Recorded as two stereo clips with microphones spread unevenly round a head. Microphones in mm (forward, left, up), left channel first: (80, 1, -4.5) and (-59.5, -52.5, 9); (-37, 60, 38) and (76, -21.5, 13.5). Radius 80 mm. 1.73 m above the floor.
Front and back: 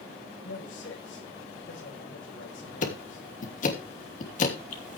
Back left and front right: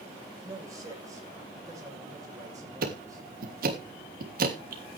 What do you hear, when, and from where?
0.4 s a man speaking: 30° left, 9.5 m
2.8 s ticking: 15° right, 3 m